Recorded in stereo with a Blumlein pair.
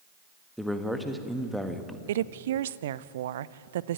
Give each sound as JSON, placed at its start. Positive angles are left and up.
{"t": 0.6, "sound": "a man speaking", "azimuth_deg": 0, "distance_m": 1.6}
{"t": 2.1, "sound": "a woman speaking", "azimuth_deg": -60, "distance_m": 0.5}